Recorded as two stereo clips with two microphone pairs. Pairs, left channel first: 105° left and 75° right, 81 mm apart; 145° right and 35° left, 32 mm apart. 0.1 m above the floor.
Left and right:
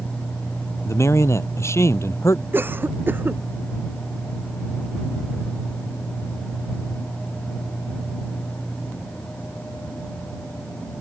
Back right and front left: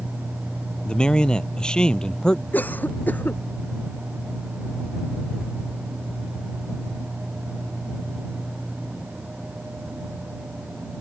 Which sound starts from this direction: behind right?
A cough, at 2.5 s.